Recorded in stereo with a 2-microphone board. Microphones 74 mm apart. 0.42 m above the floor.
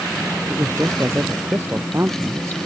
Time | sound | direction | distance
0.5 | a man speaking | 35° right (ahead or behind) | ?